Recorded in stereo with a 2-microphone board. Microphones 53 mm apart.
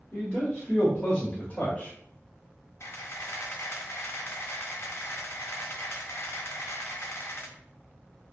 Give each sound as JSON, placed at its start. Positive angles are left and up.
{"t": 0.1, "sound": "a man speaking", "side_deg": 25, "distance_m": 1.5}
{"t": 2.8, "sound": "a camera shutter", "side_deg": 55, "distance_m": 0.5}